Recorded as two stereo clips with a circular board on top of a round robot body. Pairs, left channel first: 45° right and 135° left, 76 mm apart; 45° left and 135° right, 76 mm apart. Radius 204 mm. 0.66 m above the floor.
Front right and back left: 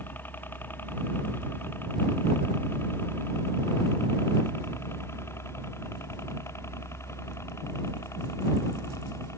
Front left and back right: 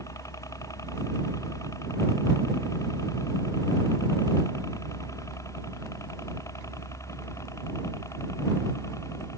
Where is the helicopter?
15° left; by 9.4 s straight ahead.